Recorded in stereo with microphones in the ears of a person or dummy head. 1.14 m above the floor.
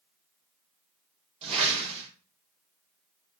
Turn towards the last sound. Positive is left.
turn(degrees=-35)  # may be behind; listen again after turning